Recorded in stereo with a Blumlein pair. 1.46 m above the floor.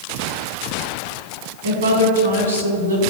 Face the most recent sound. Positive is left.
turn(degrees=-70)